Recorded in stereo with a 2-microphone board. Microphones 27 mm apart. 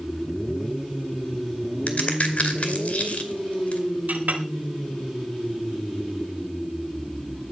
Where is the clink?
75° right (ahead or behind), 3.5 m.